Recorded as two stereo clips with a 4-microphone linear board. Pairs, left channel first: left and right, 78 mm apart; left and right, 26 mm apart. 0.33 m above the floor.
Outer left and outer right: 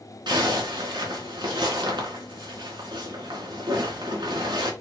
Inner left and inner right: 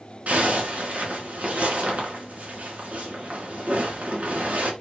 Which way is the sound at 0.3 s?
75° right (ahead or behind).